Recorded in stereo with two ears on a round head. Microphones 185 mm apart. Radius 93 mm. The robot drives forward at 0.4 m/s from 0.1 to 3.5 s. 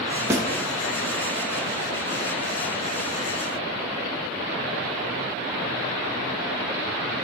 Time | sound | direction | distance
0.3 | a snare drum | 15° right (ahead or behind) | 1.1 m